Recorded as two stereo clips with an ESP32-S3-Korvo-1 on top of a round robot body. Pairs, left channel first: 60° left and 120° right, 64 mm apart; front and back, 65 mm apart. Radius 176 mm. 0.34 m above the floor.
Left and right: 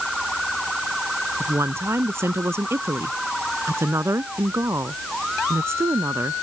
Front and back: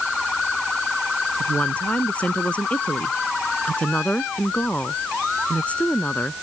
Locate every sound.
1.4 s a woman speaking: 70° right